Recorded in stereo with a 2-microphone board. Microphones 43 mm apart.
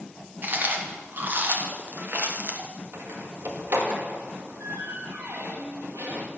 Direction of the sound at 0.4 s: 50° right (ahead or behind).